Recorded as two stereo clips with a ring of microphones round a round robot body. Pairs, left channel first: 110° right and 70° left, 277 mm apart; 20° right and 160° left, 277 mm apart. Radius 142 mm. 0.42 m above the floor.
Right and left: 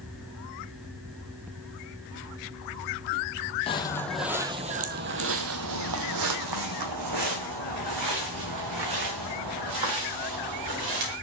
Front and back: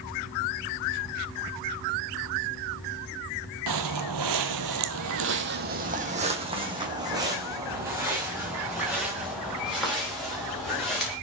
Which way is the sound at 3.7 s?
175° left.